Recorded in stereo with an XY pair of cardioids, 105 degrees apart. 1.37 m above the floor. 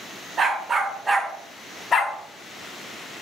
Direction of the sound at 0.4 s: 40° right.